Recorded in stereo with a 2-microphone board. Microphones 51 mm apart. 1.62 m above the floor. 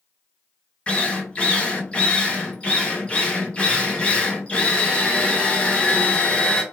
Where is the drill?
20° left (ahead or behind), 0.7 m.